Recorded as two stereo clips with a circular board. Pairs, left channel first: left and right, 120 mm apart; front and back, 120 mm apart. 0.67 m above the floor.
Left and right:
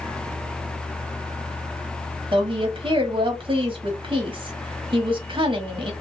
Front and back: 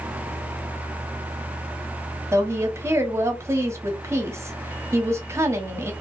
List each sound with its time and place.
2.3 s a woman speaking: 115° right, 1.1 m